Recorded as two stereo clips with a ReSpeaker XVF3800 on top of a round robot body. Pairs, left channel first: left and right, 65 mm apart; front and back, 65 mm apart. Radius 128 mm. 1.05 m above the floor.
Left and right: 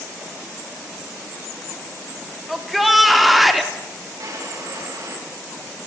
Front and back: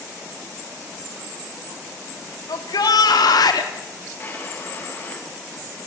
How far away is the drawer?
About 7 m.